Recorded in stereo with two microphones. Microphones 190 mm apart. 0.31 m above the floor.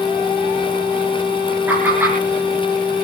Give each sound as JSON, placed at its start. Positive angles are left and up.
{"t": 1.7, "sound": "laughter", "side_deg": -10, "distance_m": 4.5}